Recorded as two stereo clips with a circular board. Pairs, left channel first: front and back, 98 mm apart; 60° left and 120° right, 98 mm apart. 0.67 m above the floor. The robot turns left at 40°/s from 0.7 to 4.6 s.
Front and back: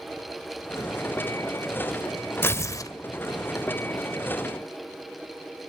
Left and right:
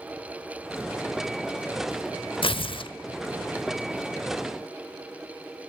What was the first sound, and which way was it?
Tearing paper, 65° left.